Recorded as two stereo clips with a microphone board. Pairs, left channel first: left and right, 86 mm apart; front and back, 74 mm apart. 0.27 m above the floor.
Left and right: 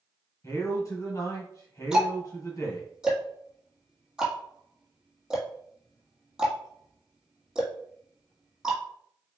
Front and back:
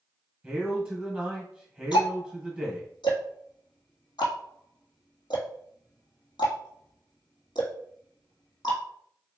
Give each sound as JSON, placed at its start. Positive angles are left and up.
{"t": 0.4, "sound": "a man speaking", "azimuth_deg": 105, "distance_m": 1.9}
{"t": 1.9, "sound": "ticking", "azimuth_deg": -10, "distance_m": 1.5}